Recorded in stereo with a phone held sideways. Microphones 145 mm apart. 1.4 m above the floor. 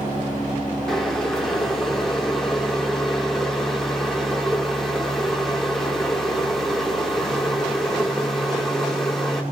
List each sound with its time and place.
0.9 s boiling: centre (ahead or behind), 3.5 m